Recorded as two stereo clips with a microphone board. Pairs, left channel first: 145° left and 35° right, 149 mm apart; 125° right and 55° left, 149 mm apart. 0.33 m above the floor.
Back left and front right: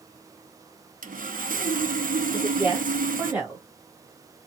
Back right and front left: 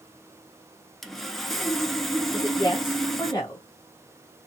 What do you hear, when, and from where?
1.0 s sawing: 35° right, 0.7 m
2.3 s a woman speaking: 95° right, 1.6 m